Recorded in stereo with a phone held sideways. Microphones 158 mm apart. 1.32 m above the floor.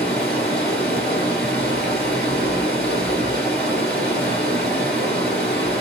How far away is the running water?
About 2 m.